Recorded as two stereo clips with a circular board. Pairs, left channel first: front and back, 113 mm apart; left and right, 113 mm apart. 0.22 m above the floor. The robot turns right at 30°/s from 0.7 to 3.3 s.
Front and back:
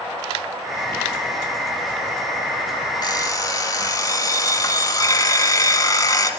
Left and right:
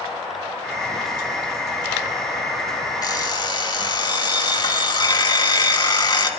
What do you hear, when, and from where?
3.0 s an alarm clock: 40° left, 1.0 m; by 6.3 s 50° left, 1.0 m